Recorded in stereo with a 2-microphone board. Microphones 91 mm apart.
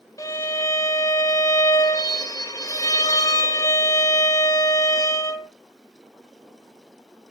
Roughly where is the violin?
Left.